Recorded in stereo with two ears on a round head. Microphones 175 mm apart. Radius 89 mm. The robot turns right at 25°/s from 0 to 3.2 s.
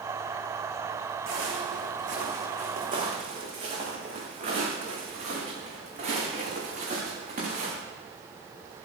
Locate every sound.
1.3 s footsteps: 75° right (ahead or behind), 5 m; by 7.7 s 45° right (ahead or behind), 8.5 m